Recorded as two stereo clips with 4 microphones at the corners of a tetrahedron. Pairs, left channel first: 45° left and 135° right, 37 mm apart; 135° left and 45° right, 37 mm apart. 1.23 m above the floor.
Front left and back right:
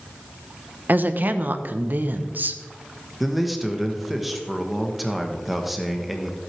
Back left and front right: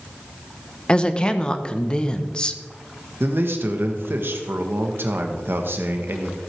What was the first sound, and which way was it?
A woman speaking, 160° right.